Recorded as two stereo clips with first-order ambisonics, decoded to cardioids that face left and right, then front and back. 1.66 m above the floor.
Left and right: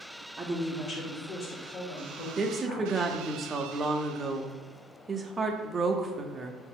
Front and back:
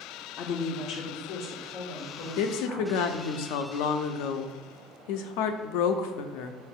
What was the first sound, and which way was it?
A woman speaking, 15° right.